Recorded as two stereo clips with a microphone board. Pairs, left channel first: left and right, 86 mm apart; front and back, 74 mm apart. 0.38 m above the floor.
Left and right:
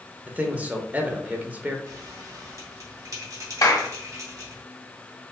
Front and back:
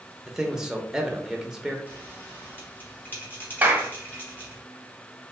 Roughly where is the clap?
Behind left.